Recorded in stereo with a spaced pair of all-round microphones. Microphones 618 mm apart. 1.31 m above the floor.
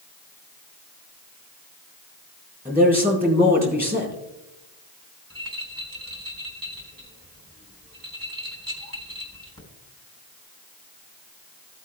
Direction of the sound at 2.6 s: 15° right (ahead or behind).